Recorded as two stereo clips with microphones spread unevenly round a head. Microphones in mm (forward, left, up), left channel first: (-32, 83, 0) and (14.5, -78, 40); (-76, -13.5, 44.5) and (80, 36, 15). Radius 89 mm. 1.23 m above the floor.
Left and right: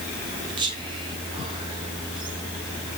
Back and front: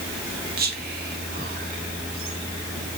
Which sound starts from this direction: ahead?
Whispering, at 0.6 s.